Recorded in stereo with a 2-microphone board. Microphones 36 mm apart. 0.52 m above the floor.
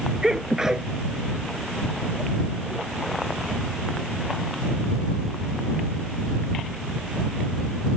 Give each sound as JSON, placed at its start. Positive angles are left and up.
{"t": 0.2, "sound": "a sneeze", "side_deg": -15}